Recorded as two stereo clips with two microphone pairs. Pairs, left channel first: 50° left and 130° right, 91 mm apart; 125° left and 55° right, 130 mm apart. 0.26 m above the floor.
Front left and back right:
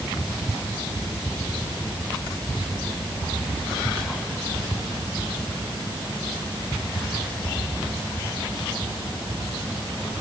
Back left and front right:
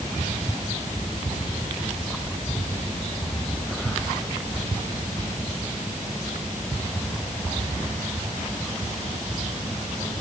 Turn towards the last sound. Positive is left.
No sound to turn to.